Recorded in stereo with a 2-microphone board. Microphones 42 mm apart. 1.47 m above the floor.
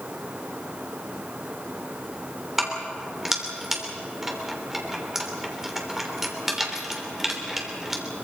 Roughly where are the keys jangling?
Centre.